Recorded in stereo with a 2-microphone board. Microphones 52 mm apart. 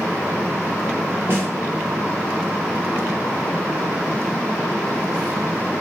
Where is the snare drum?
45° right (ahead or behind), 1.1 m.